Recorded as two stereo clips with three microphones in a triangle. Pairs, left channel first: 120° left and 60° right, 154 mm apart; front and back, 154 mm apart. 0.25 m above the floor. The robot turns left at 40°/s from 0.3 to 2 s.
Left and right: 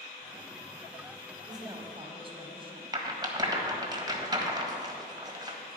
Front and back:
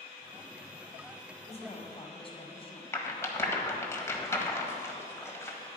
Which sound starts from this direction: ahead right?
A rattle, at 2.9 s.